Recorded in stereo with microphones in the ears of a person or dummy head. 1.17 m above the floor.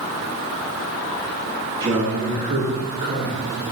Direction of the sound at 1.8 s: 20° right (ahead or behind).